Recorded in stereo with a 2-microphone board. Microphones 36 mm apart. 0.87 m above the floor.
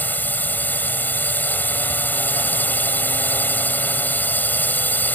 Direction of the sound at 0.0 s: 55° left (ahead or behind).